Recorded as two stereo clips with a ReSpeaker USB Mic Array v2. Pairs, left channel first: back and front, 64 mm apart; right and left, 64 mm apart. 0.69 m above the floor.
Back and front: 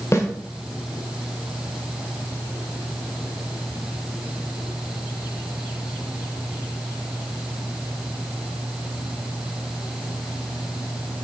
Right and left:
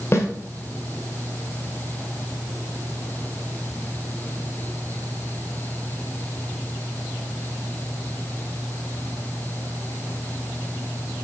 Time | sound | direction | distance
0.1 | a snare drum | 135° right | 1.6 m